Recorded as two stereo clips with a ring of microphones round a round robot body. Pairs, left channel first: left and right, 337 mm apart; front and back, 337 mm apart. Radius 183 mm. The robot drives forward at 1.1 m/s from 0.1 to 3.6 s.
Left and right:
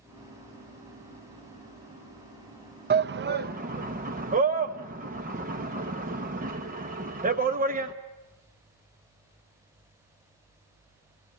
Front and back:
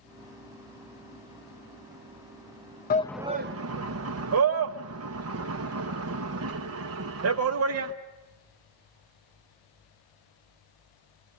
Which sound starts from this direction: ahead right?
A shout, at 2.9 s.